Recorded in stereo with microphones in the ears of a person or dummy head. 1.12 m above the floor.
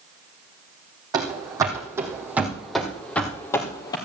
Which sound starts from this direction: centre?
Running footsteps, at 1.1 s.